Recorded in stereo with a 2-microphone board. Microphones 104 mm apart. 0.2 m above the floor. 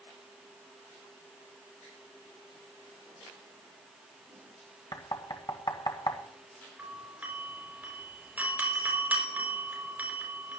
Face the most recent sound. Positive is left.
turn(degrees=-15)  # may be behind; listen again after turning